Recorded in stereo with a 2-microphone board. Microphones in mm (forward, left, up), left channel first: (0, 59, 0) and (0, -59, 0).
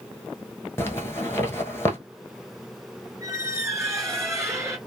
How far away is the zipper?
About 1.0 m.